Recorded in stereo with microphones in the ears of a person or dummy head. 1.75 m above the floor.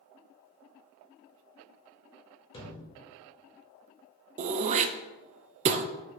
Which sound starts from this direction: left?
A thud, at 2.5 s.